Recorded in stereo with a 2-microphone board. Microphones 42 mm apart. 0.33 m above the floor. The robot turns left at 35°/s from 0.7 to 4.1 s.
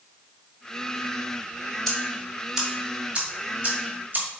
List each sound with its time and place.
1.9 s ticking: 10° left (ahead or behind), 1.8 m; by 4.3 s 45° right (ahead or behind), 1.8 m